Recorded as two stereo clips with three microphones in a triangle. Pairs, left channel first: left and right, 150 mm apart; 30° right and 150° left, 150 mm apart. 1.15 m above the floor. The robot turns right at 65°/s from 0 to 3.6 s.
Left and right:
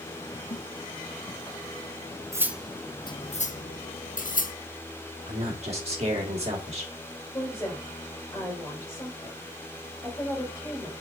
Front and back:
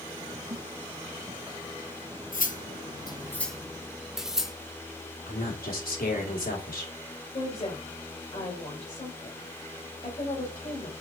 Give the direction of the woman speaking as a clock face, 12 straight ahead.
11 o'clock.